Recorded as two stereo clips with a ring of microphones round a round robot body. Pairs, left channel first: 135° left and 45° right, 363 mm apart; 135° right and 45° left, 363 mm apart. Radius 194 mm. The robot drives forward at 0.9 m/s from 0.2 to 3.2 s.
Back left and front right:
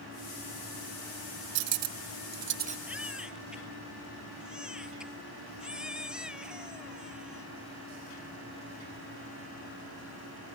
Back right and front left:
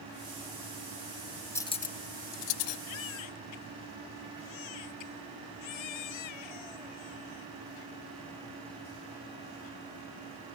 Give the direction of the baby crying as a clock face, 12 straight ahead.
4 o'clock.